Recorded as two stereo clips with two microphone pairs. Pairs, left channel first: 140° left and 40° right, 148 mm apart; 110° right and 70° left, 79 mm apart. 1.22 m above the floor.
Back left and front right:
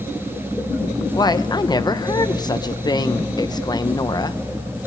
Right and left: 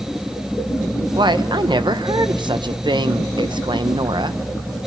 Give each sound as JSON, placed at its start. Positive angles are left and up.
{"t": 1.1, "sound": "a woman speaking", "azimuth_deg": 80, "distance_m": 0.8}